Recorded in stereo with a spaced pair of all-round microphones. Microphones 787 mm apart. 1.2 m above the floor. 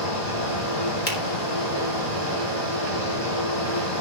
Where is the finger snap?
80° left, 2.5 m.